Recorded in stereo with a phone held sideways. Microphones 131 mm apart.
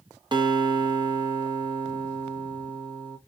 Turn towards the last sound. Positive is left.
turn(degrees=-35)  # may be behind; listen again after turning